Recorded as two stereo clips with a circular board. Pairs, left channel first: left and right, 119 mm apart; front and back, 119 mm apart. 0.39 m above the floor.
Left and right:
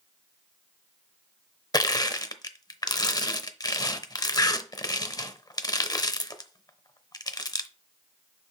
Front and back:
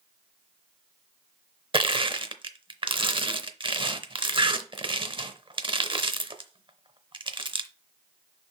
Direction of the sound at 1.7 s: 145° left.